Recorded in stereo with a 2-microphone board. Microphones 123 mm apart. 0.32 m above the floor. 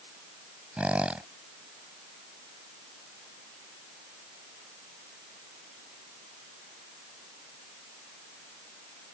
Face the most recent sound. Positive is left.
turn(degrees=-10)  # may be behind; listen again after turning